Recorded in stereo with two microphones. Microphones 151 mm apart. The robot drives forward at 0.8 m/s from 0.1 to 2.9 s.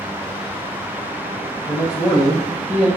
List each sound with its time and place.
1.7 s a man speaking: 25° left (ahead or behind), 1.8 m; by 2.9 s 15° left (ahead or behind), 2.5 m